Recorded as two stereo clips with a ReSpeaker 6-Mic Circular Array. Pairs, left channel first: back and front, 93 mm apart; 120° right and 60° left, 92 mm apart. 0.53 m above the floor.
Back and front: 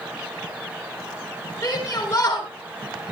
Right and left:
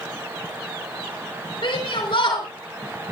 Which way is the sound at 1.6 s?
130° right.